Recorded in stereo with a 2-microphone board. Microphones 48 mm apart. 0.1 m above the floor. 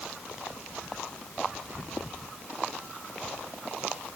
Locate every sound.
Only background noise.